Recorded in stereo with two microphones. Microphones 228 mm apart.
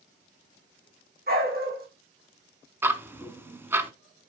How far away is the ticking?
About 0.8 m.